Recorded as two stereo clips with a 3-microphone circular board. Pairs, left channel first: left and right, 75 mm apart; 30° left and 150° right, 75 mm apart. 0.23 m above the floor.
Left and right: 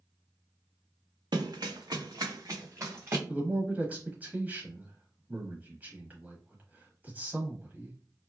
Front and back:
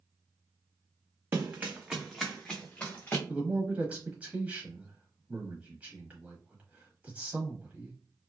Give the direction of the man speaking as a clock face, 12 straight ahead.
4 o'clock.